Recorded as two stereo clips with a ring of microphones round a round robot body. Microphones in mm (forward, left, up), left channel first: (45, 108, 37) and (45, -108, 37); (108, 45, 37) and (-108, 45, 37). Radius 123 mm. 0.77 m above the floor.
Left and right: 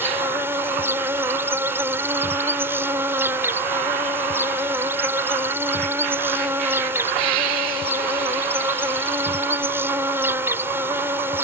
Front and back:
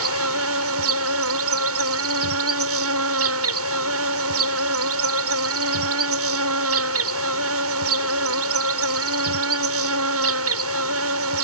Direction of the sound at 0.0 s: 170° right.